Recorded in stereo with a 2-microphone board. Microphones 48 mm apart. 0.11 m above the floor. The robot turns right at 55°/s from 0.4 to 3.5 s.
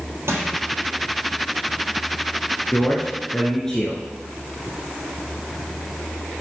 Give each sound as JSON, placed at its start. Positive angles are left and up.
{"t": 0.3, "sound": "crushing", "side_deg": -65, "distance_m": 3.5}
{"t": 2.7, "sound": "a man speaking", "azimuth_deg": 120, "distance_m": 1.3}